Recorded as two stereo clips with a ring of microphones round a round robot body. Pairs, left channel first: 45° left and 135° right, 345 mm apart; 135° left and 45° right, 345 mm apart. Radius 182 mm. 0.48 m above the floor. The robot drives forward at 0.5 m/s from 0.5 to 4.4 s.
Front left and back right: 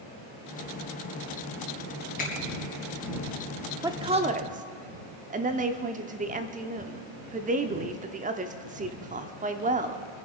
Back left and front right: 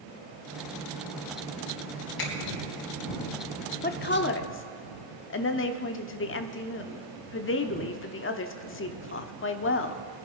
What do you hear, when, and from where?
2.2 s a finger snap: 110° left, 3.5 m; by 2.3 s 115° left, 3.5 m
3.8 s a woman speaking: 155° left, 0.8 m; by 10.0 s 170° left, 0.9 m